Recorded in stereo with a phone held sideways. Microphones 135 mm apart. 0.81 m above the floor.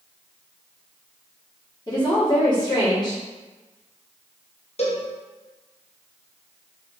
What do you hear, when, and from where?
1.9 s a woman speaking: 30° left (ahead or behind), 1.5 m
4.8 s a cowbell: 50° left (ahead or behind), 0.6 m